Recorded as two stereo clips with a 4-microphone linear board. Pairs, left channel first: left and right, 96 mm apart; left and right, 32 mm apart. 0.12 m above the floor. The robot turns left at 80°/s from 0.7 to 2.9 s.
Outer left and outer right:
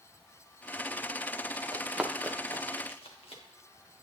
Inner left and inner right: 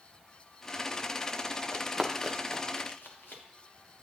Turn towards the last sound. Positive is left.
turn(degrees=80)